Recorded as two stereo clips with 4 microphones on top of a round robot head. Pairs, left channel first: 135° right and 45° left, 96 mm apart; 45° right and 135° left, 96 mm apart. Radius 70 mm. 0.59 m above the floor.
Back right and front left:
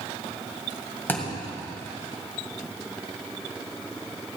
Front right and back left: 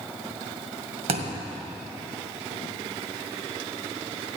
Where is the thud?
155° left, 1.9 m.